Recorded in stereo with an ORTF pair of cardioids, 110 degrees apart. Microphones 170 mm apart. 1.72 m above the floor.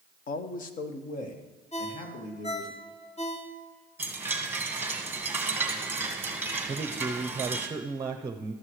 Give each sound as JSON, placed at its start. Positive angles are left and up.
{"t": 0.3, "sound": "a man speaking", "azimuth_deg": 50, "distance_m": 1.0}
{"t": 1.7, "sound": "a ringtone", "azimuth_deg": 45, "distance_m": 2.5}
{"t": 4.0, "sound": "a chime", "azimuth_deg": -10, "distance_m": 1.7}
{"t": 6.7, "sound": "a man speaking", "azimuth_deg": -20, "distance_m": 0.8}